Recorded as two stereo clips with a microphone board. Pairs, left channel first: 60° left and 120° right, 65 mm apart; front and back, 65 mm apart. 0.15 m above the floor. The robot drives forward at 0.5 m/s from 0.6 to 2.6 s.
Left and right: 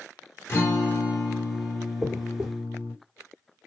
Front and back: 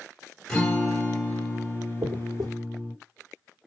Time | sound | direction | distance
0.5 | a guitar | 70° left | 2.0 m
2.0 | a dropped coin | 155° left | 1.3 m